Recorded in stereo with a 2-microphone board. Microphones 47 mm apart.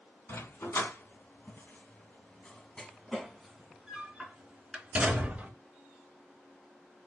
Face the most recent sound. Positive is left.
turn(degrees=-25)  # may be behind; listen again after turning